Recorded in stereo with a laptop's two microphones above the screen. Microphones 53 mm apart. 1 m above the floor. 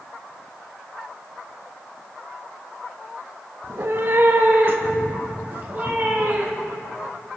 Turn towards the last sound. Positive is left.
turn(degrees=-30)  # may be behind; listen again after turning